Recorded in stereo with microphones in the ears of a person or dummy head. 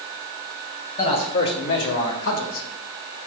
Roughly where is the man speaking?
Left.